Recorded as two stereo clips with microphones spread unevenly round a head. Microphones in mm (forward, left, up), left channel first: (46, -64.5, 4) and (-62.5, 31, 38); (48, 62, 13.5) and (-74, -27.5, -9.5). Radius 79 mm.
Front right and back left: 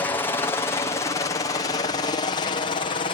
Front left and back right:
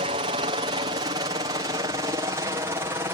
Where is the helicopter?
105° right; by 3.1 s 75° right.